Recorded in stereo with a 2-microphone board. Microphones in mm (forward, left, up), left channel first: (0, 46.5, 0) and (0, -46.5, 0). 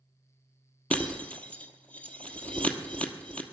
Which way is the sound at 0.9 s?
15° left (ahead or behind).